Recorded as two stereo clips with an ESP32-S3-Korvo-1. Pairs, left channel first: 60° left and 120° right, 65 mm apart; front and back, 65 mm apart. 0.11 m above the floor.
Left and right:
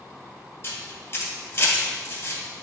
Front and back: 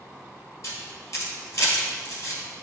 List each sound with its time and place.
0.6 s a camera shutter: 20° left, 2.5 m